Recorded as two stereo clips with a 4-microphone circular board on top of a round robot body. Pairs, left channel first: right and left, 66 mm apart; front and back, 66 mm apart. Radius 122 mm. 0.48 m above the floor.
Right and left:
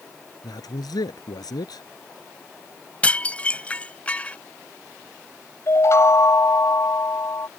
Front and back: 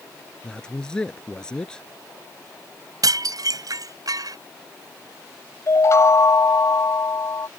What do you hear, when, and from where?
0.4 s a man speaking: 80° right
3.0 s dishes clattering: 160° right
5.7 s a chime: 45° right